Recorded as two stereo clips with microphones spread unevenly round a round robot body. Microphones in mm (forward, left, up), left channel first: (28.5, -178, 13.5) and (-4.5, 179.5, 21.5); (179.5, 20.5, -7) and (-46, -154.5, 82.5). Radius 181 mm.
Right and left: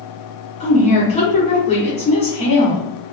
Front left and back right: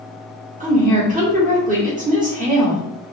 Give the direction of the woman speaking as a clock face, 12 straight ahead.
3 o'clock.